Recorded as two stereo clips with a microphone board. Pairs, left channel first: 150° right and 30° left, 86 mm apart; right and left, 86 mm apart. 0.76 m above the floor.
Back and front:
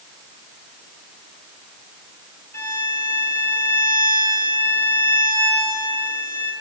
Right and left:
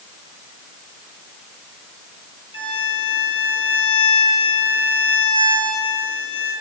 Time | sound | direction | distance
2.5 | a violin | 90° right | 5.5 m